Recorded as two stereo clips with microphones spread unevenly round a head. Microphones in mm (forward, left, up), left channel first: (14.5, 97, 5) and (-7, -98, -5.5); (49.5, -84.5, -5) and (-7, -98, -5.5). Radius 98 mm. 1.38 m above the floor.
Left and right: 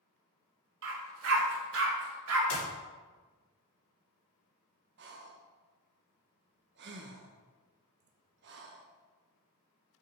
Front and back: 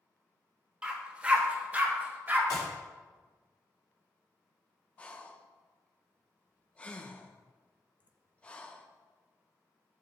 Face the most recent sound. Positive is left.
turn(degrees=-60)